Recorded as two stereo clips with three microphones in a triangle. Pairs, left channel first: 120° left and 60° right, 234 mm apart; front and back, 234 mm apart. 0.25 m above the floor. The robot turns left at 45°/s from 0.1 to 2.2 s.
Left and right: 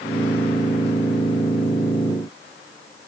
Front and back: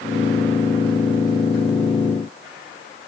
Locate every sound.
Only background noise.